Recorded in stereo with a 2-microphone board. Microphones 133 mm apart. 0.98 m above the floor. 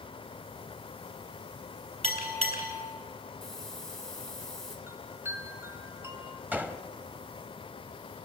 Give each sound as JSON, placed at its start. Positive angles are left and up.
{"t": 2.0, "sound": "a bell", "side_deg": -45, "distance_m": 4.0}
{"t": 3.4, "sound": "a hiss", "side_deg": 5, "distance_m": 3.0}
{"t": 4.9, "sound": "a chime", "side_deg": -20, "distance_m": 1.8}
{"t": 6.5, "sound": "a gunshot", "side_deg": -10, "distance_m": 1.0}